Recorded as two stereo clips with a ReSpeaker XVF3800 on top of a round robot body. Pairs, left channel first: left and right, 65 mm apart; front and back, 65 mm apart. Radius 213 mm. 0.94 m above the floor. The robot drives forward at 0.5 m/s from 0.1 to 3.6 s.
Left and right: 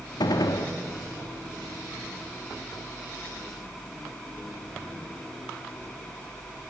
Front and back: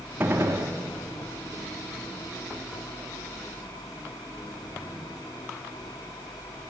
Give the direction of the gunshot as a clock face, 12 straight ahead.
8 o'clock.